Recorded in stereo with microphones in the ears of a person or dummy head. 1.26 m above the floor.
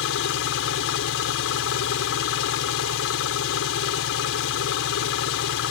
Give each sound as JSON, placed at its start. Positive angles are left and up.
{"t": 0.0, "sound": "an engine running", "side_deg": 75}